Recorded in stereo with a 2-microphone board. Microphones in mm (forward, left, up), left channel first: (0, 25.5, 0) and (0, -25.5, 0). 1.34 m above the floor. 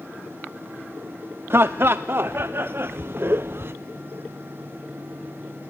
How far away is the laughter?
About 0.5 m.